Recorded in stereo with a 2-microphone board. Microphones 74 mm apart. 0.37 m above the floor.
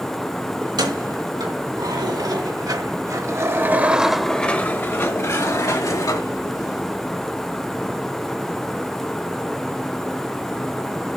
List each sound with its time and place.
0.6 s keys jangling: 80° right, 3 m; by 6.8 s 60° left (ahead or behind), 2.5 m